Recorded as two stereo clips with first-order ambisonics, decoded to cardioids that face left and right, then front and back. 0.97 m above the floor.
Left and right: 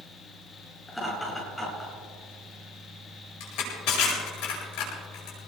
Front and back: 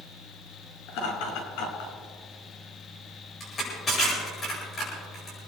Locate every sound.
0.9 s laughter: 5° left, 8 m
3.4 s crushing: 65° left, 8.5 m